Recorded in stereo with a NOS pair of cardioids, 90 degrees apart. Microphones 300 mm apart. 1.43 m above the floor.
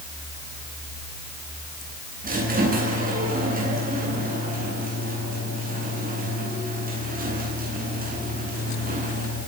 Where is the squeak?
30° right, 9.5 m.